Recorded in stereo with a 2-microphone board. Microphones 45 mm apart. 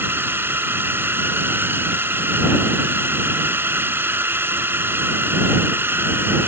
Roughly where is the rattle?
I don't hear a rattle.